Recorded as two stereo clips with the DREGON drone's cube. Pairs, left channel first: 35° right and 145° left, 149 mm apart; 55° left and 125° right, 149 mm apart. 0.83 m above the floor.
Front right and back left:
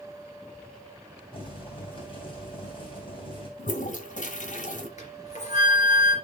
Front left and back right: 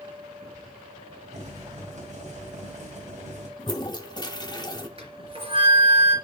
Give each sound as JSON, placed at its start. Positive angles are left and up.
{"t": 1.3, "sound": "boiling", "azimuth_deg": -85, "distance_m": 3.5}
{"t": 3.6, "sound": "a toilet flushing", "azimuth_deg": -5, "distance_m": 1.3}
{"t": 5.0, "sound": "a flute", "azimuth_deg": -75, "distance_m": 3.5}